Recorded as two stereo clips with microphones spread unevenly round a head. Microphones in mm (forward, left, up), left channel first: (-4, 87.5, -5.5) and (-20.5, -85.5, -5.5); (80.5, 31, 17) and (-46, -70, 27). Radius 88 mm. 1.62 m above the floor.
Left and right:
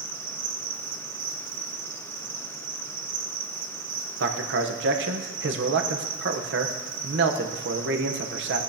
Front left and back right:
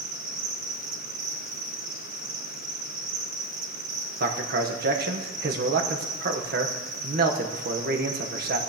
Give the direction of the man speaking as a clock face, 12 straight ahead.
4 o'clock.